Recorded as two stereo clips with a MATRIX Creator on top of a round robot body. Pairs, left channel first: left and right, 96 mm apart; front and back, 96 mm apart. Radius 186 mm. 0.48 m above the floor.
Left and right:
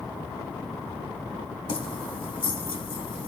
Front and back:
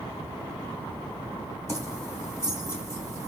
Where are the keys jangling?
60° left, 3 m.